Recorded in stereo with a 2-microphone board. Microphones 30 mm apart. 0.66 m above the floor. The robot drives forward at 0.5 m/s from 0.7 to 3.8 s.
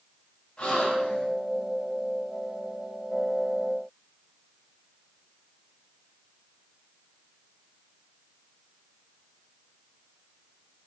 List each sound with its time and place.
0.6 s a gasp: 40° left (ahead or behind), 4.5 m; by 1.3 s 45° left (ahead or behind), 4.5 m